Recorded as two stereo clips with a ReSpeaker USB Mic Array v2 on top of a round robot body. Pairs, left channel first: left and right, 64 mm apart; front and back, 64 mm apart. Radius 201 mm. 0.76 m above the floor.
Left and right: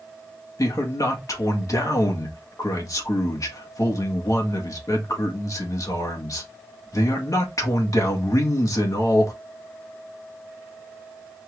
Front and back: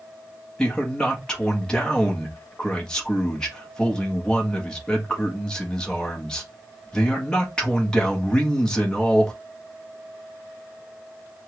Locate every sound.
0.6 s a man speaking: 75° left, 1.6 m